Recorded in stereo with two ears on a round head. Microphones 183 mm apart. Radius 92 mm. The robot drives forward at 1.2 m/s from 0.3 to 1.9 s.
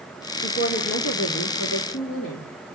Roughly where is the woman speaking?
Left.